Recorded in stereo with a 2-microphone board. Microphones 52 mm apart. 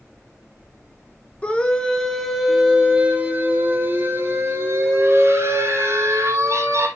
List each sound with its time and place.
1.4 s a scream: 25° left (ahead or behind), 1.3 m; by 6.9 s 65° right (ahead or behind), 3 m